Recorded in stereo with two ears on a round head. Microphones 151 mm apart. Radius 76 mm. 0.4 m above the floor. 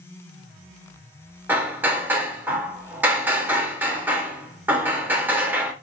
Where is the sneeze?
I don't hear a sneeze.